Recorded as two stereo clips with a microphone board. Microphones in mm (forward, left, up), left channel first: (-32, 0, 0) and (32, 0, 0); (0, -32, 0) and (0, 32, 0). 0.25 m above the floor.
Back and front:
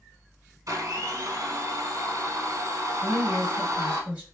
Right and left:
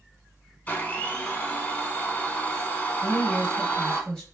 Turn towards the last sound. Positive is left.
turn(degrees=-35)